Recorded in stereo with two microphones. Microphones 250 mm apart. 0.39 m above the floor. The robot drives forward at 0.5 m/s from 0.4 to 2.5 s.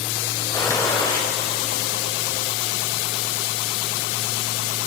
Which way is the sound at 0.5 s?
15° left (ahead or behind).